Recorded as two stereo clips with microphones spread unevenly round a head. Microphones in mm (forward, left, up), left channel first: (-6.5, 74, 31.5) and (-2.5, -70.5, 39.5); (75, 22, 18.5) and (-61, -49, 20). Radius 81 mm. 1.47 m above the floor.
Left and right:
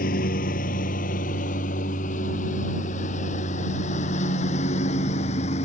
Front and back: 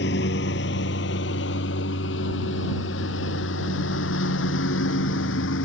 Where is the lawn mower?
55° left; by 5.7 s 40° left.